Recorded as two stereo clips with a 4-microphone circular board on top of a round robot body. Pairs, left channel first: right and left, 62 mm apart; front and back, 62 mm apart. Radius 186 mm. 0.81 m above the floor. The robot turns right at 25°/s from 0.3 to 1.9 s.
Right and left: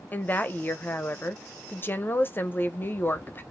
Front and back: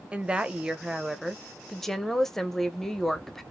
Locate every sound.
0.1 s a woman speaking: 120° right, 0.8 m; by 3.4 s 80° right, 0.8 m